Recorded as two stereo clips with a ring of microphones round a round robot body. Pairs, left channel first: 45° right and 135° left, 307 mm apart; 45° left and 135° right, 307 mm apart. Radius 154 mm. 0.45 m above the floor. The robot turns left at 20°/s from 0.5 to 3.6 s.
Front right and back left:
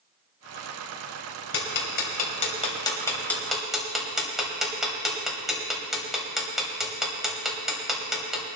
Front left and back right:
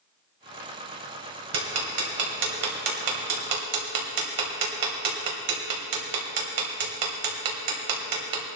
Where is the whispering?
I don't hear whispering.